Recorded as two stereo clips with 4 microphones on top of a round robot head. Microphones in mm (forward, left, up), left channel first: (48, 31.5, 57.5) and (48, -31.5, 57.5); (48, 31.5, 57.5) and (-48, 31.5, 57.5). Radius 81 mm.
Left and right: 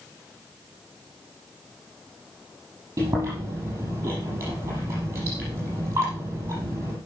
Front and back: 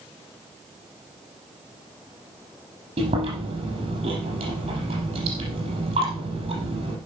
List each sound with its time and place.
3.0 s chewing: 150° right, 5.5 m